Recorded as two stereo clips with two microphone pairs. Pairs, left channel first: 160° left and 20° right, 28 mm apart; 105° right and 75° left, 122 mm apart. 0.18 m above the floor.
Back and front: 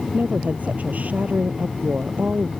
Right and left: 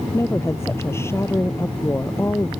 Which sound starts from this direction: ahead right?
A woman speaking, at 0.1 s.